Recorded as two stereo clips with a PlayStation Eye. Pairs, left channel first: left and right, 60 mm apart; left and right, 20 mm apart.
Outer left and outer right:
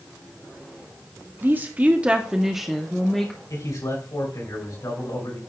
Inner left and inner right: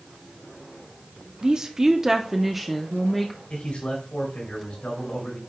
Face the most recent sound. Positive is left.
turn(degrees=80)